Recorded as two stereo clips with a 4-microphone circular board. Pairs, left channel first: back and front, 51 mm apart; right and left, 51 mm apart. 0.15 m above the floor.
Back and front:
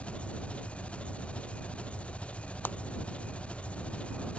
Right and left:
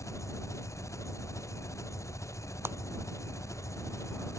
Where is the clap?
130° left.